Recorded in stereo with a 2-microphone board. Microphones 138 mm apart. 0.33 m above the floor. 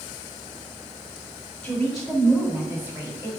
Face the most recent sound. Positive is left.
turn(degrees=-25)  # may be behind; listen again after turning